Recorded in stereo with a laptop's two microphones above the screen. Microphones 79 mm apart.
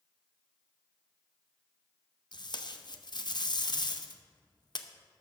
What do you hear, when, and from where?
2.3 s tape being pulled: 55° left (ahead or behind), 0.7 m